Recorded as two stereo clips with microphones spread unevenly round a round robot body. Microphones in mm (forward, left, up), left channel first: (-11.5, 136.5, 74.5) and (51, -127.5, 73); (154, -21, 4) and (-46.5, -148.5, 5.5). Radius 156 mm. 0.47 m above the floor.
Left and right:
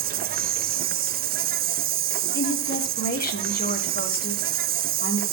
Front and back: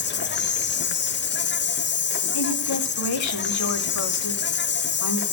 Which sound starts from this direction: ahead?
An insect, at 0.0 s.